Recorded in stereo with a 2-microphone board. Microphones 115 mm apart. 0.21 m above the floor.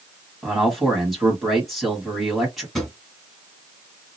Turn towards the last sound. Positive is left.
turn(degrees=0)  # may be behind; listen again after turning